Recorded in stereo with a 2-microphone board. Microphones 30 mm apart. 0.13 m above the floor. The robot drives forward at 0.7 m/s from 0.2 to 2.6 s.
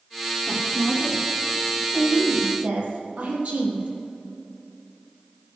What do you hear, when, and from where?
0.5 s a woman speaking: 35° right (ahead or behind), 5 m; by 3.9 s 50° right (ahead or behind), 4 m